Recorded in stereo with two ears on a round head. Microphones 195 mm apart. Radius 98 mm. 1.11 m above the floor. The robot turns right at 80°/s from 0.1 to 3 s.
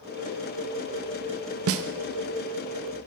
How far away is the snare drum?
About 0.6 m.